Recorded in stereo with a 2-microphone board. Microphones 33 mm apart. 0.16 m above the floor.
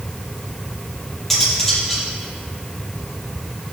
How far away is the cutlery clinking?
About 2.5 m.